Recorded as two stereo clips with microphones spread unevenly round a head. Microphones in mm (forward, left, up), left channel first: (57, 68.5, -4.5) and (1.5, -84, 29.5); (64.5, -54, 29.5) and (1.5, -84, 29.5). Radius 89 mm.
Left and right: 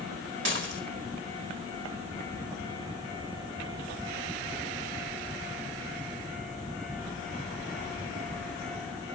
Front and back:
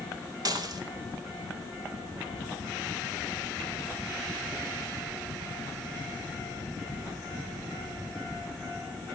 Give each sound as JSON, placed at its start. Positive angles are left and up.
{"t": 0.5, "sound": "dishes clattering", "azimuth_deg": -130, "distance_m": 2.5}